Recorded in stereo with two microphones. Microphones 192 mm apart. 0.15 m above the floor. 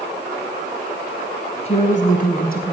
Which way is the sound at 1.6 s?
35° left (ahead or behind).